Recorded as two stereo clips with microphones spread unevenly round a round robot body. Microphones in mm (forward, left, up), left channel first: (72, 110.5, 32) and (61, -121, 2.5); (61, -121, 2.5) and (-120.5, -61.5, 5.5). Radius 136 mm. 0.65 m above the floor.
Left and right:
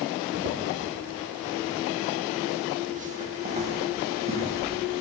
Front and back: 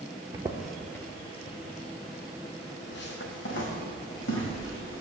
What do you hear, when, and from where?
0.3 s footsteps: 135° right, 0.8 m; by 5.0 s 25° right, 3 m